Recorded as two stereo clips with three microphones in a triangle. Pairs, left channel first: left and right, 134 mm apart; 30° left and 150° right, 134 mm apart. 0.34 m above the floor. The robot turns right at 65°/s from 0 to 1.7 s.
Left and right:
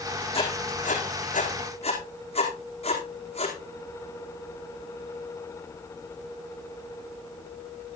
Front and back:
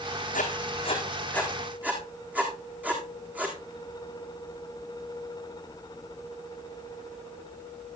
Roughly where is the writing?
Ahead left.